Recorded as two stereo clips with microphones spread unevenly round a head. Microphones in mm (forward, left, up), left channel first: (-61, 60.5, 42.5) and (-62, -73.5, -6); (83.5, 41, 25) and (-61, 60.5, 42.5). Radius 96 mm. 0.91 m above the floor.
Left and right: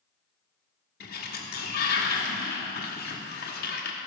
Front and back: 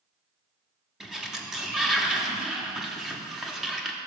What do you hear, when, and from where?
1.0 s a sliding door: 85° left, 1.2 m